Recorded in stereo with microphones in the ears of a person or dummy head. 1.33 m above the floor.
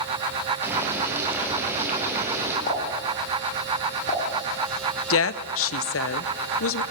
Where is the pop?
45° left (ahead or behind), 5 m.